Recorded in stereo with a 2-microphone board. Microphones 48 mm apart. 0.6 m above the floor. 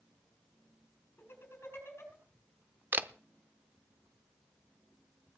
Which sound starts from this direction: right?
A camera shutter, at 2.9 s.